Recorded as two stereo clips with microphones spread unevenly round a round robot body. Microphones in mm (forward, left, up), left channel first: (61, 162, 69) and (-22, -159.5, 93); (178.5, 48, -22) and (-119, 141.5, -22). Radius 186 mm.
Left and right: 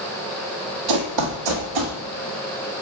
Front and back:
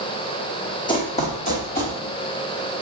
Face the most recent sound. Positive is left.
turn(degrees=-85)